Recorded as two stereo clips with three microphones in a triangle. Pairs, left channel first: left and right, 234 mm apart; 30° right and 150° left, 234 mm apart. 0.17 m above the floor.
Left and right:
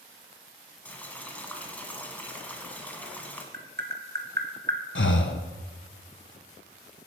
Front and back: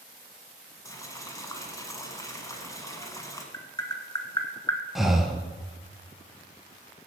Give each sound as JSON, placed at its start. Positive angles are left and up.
{"t": 0.8, "sound": "boiling", "azimuth_deg": 20, "distance_m": 1.4}
{"t": 3.5, "sound": "tapping", "azimuth_deg": -100, "distance_m": 1.3}
{"t": 5.0, "sound": "breathing", "azimuth_deg": 60, "distance_m": 0.7}